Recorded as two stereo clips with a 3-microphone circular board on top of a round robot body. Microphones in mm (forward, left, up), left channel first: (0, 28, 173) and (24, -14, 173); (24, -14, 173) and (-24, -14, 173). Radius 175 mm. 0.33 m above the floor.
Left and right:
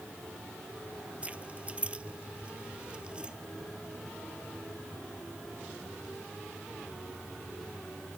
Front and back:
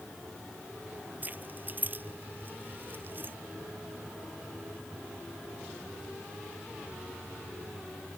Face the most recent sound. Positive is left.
turn(degrees=-130)